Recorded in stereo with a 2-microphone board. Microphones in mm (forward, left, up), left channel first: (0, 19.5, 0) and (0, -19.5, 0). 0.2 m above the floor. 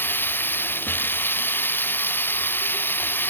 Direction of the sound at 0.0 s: 55° left (ahead or behind).